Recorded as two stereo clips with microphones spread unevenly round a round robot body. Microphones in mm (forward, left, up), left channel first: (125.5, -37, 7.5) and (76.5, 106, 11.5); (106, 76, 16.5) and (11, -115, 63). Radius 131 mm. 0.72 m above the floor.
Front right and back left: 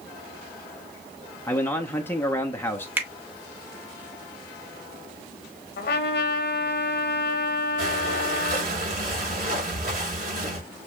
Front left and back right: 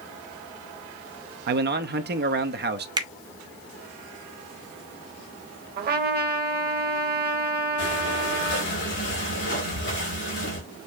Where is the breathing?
90° left, 3 m.